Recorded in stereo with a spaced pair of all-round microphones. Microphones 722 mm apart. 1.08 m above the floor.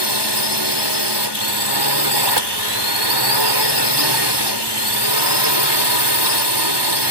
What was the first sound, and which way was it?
A drone, 35° right (ahead or behind).